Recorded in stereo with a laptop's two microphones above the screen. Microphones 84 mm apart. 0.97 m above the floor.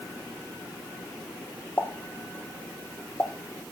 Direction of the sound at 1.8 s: 20° left (ahead or behind).